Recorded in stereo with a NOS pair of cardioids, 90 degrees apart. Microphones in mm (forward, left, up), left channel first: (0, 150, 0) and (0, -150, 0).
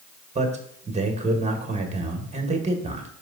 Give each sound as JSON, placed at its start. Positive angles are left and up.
{"t": 0.3, "sound": "a man speaking", "azimuth_deg": -25, "distance_m": 1.6}